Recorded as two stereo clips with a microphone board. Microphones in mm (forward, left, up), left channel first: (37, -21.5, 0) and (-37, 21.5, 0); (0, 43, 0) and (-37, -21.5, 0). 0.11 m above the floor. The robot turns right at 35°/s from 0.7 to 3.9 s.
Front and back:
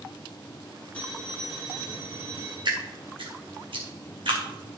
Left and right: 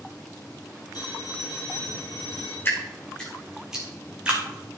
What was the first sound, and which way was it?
A phone ringing, 45° left.